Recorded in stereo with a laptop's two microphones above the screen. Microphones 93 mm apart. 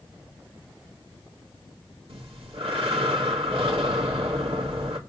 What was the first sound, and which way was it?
Breathing, 75° right (ahead or behind).